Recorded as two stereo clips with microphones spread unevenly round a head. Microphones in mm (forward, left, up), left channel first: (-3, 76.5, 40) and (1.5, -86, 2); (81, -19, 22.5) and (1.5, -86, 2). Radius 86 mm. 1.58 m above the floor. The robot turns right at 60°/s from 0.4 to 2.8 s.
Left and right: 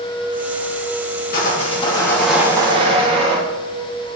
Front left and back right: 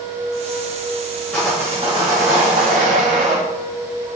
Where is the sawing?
120° left, 1.6 m; by 3.4 s 155° right, 1.6 m.